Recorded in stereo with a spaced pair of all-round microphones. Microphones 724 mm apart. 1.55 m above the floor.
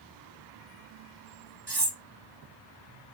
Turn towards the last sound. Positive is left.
turn(degrees=-30)  # may be behind; listen again after turning